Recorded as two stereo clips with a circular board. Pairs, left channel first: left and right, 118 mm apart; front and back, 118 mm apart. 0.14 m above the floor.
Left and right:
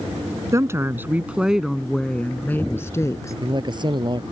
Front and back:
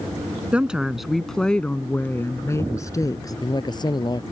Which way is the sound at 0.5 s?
110° right.